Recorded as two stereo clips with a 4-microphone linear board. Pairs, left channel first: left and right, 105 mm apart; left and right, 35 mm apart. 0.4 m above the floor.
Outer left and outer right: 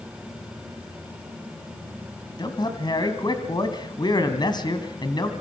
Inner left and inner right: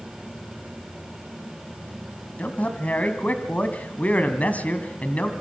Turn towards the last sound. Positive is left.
turn(degrees=40)  # may be behind; listen again after turning